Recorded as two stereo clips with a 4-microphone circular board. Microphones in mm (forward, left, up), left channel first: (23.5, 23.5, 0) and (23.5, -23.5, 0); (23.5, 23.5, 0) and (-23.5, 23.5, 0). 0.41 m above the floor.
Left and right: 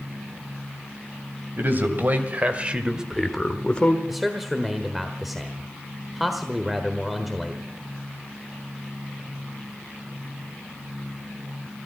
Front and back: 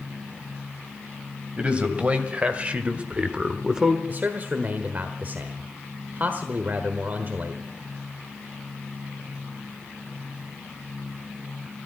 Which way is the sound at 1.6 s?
120° right.